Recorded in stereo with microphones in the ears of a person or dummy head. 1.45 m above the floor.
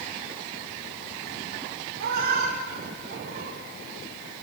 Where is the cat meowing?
60° right (ahead or behind), 3 m; by 3.6 s 45° right (ahead or behind), 2.5 m.